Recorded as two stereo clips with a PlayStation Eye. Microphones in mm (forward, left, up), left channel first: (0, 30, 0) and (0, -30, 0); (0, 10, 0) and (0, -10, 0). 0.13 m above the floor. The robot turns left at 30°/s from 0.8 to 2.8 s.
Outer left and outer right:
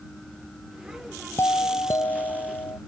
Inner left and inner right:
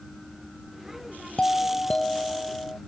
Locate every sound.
1.4 s a doorbell: 130° left; by 2.8 s 85° left